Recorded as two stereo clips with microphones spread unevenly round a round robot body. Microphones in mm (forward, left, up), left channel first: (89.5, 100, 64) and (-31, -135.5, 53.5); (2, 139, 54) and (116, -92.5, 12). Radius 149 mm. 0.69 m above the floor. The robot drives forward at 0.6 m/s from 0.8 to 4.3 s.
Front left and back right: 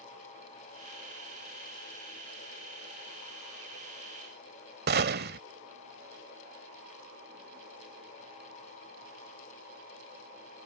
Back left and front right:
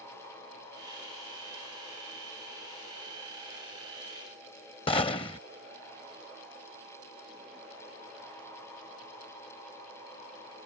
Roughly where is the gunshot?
Behind.